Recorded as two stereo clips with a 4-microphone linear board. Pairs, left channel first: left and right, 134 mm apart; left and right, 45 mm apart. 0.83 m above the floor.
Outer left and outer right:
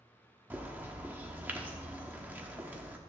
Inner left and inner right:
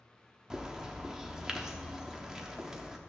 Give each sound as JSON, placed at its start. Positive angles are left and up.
{"t": 0.5, "sound": "a bird", "side_deg": -10, "distance_m": 1.0}